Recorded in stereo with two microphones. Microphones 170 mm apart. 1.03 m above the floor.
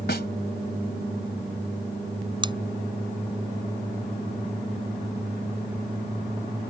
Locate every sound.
0.1 s a snare drum: 75° left (ahead or behind)
2.4 s scissors: 30° right (ahead or behind)